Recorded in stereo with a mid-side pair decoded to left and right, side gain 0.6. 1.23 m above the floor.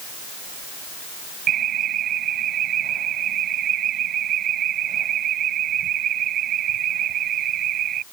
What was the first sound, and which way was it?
An alarm, 50° right.